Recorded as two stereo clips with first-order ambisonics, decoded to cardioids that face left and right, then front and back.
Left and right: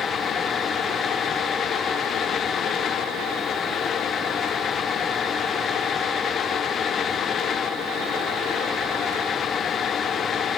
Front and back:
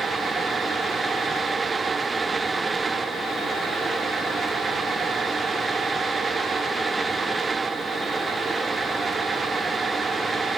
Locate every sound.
Only background noise.